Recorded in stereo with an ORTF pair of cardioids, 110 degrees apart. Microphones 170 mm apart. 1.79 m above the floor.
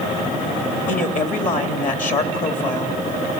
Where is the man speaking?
50° left, 3.5 m.